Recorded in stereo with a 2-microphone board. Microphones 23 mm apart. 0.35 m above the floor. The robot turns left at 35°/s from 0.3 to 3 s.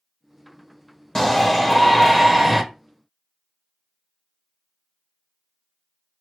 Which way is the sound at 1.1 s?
20° left (ahead or behind).